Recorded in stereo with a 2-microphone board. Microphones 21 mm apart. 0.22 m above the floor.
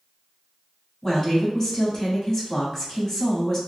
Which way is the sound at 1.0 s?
20° left (ahead or behind).